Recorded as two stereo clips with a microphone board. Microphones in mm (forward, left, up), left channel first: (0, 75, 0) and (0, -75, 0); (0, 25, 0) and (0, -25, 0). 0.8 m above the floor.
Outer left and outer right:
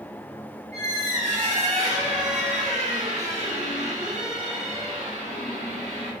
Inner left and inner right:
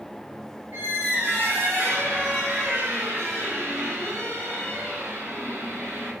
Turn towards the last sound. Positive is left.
turn(degrees=-50)  # may be behind; listen again after turning